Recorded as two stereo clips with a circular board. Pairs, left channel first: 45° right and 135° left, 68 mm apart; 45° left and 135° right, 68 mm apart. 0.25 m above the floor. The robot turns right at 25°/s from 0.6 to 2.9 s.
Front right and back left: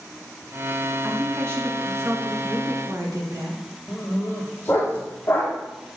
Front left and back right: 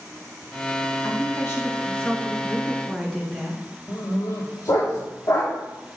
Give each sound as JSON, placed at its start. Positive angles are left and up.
{"t": 1.0, "sound": "a woman speaking", "azimuth_deg": 80, "distance_m": 3.0}
{"t": 3.9, "sound": "a dog barking", "azimuth_deg": 15, "distance_m": 3.5}